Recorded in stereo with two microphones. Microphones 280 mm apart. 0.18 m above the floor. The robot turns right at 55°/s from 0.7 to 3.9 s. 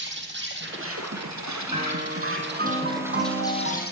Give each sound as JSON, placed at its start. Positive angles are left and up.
{"t": 0.0, "sound": "an insect", "azimuth_deg": -140, "distance_m": 2.5}
{"t": 1.7, "sound": "a piano", "azimuth_deg": -155, "distance_m": 2.0}